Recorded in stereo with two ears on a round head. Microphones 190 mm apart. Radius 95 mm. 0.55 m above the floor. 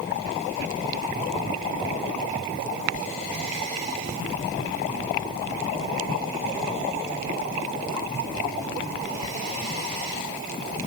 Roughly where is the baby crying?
No baby crying in this recording.